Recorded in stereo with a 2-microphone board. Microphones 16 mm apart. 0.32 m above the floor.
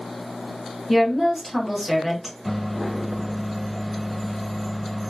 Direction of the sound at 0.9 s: 10° right (ahead or behind).